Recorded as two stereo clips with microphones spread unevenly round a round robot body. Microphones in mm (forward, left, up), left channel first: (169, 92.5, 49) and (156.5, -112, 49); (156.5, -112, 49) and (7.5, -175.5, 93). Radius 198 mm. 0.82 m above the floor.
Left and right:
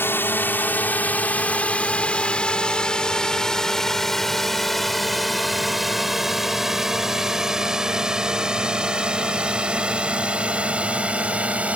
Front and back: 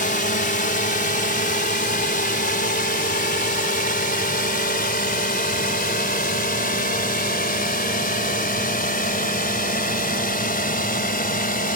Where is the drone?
10° left; by 11.8 s 10° right.